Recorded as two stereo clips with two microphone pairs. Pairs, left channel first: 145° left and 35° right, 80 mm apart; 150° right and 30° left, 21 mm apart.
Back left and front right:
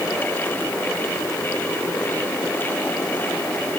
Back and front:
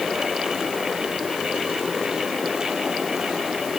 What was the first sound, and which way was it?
Only background noise.